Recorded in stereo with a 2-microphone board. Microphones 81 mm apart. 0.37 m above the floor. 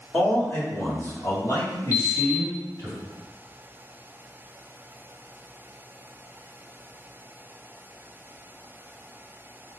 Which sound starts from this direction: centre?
A man speaking, at 0.1 s.